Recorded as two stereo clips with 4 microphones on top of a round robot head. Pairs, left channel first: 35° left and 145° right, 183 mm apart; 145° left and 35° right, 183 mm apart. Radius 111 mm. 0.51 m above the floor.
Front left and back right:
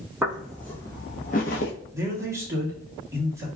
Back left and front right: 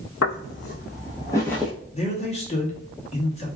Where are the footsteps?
135° left, 0.9 m; by 1.7 s 50° left, 0.7 m.